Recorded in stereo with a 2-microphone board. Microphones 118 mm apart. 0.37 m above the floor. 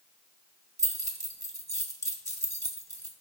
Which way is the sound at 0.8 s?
30° right (ahead or behind).